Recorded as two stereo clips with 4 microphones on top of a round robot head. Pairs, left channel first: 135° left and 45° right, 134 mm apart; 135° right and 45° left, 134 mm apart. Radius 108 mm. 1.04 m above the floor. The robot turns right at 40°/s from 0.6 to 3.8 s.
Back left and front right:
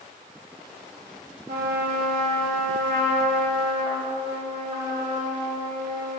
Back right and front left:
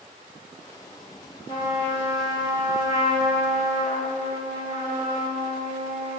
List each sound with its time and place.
1.5 s a trumpet: 75° right, 2.5 m; by 6.2 s 15° left, 2.5 m